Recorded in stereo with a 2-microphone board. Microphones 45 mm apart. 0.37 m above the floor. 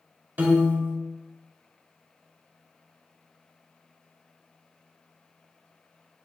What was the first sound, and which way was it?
A piano, 40° right (ahead or behind).